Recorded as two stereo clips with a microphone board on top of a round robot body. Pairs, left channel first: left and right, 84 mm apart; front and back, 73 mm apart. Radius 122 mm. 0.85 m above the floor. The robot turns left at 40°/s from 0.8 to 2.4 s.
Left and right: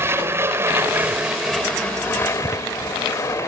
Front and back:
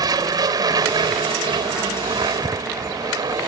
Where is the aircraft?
150° right; by 3.5 s 145° left.